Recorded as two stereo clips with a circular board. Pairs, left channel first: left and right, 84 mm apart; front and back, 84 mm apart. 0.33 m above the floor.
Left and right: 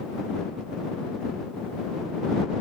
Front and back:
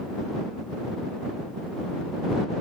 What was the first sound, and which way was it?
Only background noise.